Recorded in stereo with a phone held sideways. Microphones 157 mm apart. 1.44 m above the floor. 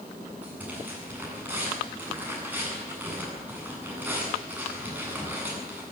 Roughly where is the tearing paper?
Centre.